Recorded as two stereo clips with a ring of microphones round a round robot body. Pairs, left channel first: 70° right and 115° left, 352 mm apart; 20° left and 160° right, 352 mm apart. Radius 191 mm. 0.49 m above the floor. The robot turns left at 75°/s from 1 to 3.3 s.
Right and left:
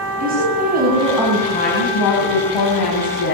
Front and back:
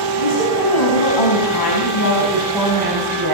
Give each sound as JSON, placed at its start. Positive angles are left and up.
{"t": 0.2, "sound": "a woman speaking", "azimuth_deg": 45, "distance_m": 6.0}